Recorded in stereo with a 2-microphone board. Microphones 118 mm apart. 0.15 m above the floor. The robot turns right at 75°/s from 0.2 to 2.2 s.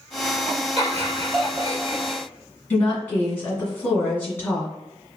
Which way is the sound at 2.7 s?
15° left (ahead or behind).